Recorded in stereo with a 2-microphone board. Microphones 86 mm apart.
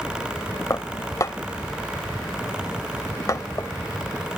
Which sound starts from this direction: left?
Dishes clattering, at 0.7 s.